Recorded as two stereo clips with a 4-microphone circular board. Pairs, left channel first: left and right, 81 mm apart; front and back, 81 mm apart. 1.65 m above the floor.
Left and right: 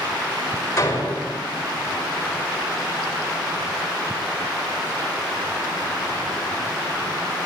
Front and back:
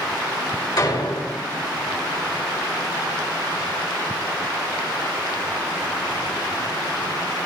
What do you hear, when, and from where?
0.8 s a door slam: 35° left, 5.5 m